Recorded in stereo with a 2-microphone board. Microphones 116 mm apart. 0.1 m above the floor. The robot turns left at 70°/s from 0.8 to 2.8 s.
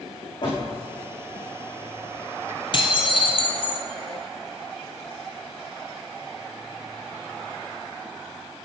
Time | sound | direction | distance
0.4 | a door slam | 45° left (ahead or behind) | 5.5 m
2.7 | dishes clattering | 45° left (ahead or behind) | 1.8 m